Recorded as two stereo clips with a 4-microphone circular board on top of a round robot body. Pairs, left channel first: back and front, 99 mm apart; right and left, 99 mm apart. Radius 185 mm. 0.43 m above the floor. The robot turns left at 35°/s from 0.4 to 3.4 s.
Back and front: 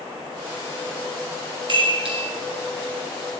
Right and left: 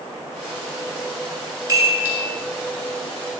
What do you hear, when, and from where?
1.7 s a chime: 35° left, 2 m; by 2.2 s 20° left, 2 m